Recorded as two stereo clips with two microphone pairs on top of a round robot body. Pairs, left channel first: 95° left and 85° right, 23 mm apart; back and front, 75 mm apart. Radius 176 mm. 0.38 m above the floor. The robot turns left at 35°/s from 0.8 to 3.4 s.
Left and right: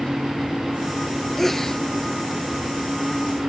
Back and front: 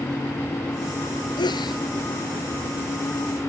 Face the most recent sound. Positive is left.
turn(degrees=110)